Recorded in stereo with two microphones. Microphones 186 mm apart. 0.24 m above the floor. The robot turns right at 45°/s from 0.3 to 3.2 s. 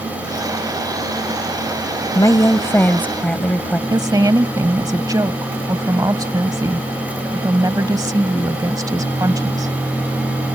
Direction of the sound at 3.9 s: 20° right (ahead or behind).